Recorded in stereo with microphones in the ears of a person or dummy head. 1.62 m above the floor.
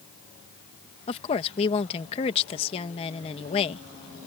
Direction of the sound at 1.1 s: 30° left (ahead or behind).